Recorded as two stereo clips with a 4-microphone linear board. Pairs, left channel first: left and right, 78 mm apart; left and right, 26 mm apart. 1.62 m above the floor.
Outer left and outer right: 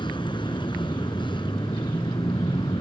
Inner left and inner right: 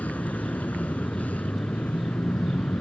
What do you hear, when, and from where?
0.0 s a vehicle: 80° left